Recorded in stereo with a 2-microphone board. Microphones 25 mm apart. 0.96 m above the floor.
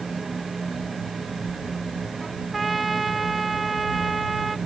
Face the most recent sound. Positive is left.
turn(degrees=0)  # may be behind; listen again after turning